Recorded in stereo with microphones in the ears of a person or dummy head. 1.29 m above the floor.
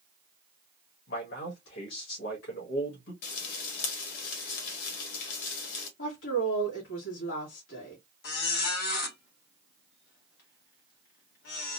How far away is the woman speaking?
About 2.5 m.